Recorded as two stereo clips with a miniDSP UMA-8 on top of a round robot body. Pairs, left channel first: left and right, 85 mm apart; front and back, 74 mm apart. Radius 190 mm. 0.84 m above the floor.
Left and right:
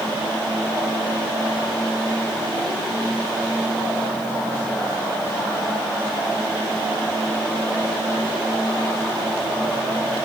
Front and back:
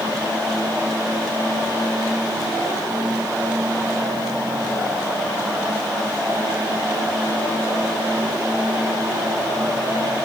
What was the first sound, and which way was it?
Only background noise.